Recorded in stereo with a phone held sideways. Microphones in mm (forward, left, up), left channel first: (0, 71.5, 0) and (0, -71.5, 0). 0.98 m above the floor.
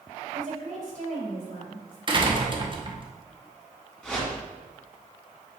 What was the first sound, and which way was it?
A woman speaking, 60° right (ahead or behind).